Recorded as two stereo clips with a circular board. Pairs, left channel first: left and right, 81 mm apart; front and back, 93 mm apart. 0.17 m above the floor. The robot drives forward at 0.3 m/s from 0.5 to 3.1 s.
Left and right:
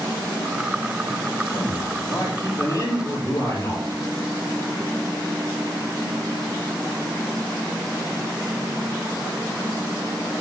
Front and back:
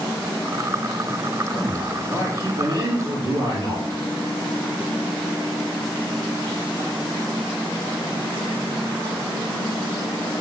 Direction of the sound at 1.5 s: 130° left.